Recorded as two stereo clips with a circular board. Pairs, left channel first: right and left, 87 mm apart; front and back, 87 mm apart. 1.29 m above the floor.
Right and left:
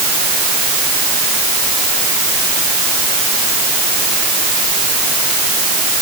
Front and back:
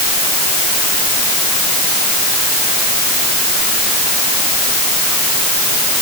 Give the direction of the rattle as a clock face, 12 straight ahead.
I don't hear a rattle.